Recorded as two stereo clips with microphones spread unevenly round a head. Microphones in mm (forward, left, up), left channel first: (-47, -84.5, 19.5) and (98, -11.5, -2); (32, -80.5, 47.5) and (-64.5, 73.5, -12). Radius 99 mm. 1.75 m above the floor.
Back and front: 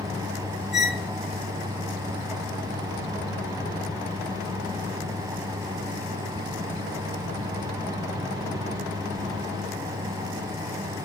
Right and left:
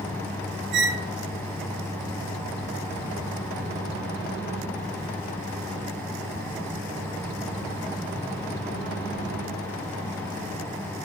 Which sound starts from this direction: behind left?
A squeak, at 0.7 s.